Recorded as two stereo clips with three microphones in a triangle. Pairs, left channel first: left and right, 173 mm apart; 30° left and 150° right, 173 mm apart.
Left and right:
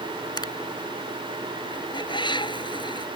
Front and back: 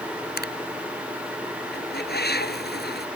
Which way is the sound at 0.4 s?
25° left.